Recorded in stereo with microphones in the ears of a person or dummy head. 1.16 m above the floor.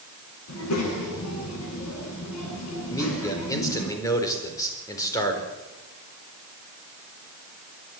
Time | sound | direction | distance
0.5 | a child speaking | 80° left | 9 m
2.9 | a man speaking | 20° left (ahead or behind) | 4.5 m